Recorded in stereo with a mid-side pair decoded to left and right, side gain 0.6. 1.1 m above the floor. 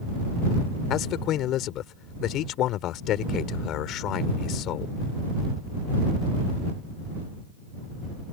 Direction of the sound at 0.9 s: 60° left.